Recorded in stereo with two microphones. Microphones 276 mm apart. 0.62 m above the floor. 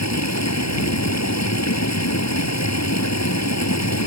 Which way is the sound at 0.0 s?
75° left (ahead or behind).